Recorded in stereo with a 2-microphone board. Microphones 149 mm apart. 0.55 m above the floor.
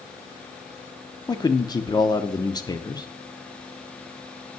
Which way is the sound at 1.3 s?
25° left (ahead or behind).